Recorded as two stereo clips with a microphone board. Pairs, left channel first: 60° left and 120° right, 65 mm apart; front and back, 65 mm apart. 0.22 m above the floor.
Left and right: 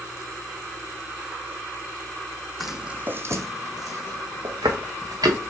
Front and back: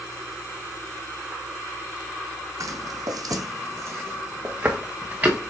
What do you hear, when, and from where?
2.6 s footsteps: 150° left, 0.6 m; by 5.5 s 115° right, 1.8 m